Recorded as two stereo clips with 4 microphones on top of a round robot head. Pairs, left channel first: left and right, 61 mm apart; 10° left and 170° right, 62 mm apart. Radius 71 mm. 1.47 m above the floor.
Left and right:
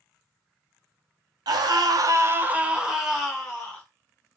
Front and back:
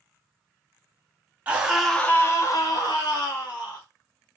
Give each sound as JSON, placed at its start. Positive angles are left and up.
{"t": 1.5, "sound": "a scream", "azimuth_deg": -100, "distance_m": 0.8}